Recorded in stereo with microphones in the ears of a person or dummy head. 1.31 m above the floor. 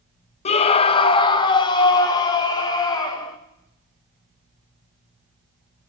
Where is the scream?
35° left (ahead or behind), 0.8 m; by 3.4 s 20° left (ahead or behind), 2.5 m.